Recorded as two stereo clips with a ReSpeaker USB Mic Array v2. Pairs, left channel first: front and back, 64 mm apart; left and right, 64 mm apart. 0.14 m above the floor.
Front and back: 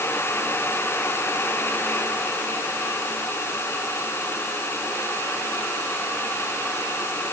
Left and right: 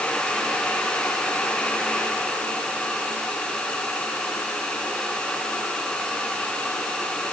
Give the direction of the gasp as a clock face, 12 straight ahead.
I don't hear a gasp.